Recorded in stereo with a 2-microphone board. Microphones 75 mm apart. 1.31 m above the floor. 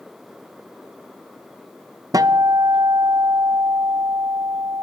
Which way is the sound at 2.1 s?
55° right (ahead or behind).